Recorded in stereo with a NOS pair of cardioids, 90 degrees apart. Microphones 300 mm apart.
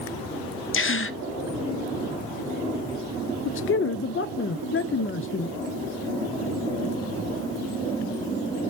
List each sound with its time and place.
0.7 s a gasp: 40° left, 0.7 m
3.5 s a man speaking: 40° left, 0.5 m